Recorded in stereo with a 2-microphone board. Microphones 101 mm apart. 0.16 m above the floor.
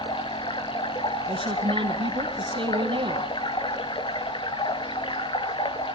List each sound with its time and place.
0.0 s running water: 55° left (ahead or behind), 0.8 m
1.3 s a woman speaking: 55° right (ahead or behind), 3 m